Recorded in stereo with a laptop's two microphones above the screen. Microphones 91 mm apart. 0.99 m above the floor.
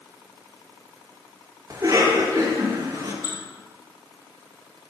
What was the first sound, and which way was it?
A cough, 40° right (ahead or behind).